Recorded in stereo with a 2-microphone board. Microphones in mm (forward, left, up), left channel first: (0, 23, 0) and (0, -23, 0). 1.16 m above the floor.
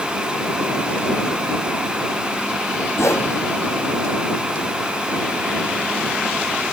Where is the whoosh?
80° left.